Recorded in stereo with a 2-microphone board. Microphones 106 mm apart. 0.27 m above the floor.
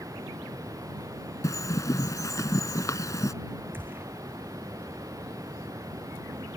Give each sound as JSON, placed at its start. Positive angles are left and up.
{"t": 0.0, "sound": "running water", "side_deg": -30}
{"t": 1.4, "sound": "a bird", "side_deg": 30}
{"t": 3.7, "sound": "a gunshot", "side_deg": -20}